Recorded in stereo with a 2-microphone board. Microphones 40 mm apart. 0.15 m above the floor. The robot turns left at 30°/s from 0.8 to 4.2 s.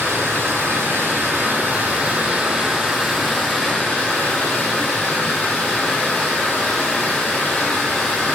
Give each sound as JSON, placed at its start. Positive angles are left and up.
{"t": 0.0, "sound": "running water", "azimuth_deg": -115, "distance_m": 0.7}